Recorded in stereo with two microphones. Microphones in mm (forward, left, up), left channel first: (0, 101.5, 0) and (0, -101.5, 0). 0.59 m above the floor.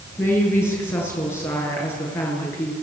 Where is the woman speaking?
10° left (ahead or behind), 8.5 m.